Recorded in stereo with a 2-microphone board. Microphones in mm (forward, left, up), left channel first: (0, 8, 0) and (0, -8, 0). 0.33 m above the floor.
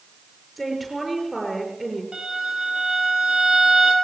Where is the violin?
60° right (ahead or behind), 4.5 m.